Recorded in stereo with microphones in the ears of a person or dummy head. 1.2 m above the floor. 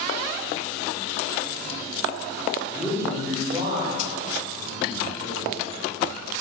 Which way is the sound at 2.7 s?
10° right (ahead or behind).